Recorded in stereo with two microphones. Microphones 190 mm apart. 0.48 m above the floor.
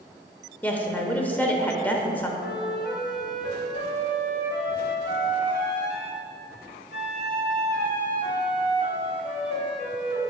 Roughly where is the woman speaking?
Centre.